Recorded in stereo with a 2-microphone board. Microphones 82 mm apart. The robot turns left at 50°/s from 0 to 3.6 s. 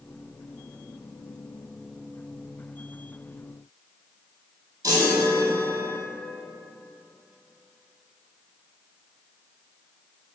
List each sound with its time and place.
4.8 s a chime: 40° right (ahead or behind), 2 m